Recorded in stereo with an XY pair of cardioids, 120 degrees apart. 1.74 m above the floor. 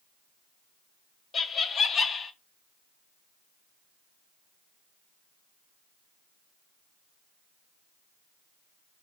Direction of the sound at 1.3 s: 40° left.